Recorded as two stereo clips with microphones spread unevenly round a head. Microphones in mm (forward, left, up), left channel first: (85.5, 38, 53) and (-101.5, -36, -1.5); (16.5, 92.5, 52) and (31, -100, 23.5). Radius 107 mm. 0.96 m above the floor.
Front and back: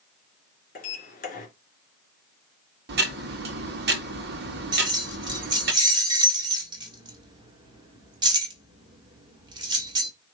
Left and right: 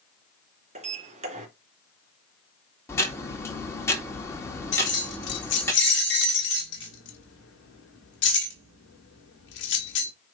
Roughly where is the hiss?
No hiss in this recording.